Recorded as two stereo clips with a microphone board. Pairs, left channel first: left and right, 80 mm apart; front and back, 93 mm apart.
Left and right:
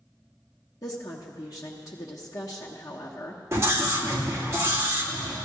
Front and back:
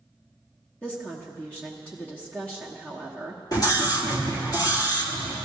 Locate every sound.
0.8 s a woman speaking: 75° left, 1.1 m
3.5 s a scream: 40° right, 2 m